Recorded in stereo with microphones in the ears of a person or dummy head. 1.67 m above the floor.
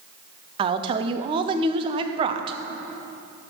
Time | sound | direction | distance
0.6 | a woman speaking | 30° right (ahead or behind) | 0.6 m